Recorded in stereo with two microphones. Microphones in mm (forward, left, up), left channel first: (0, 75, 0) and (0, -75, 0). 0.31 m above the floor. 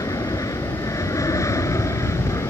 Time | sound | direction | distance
0.0 | an aircraft | 25° left (ahead or behind) | ?